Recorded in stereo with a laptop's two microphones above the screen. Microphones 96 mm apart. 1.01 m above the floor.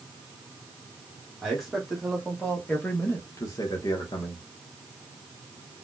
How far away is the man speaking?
About 1.6 m.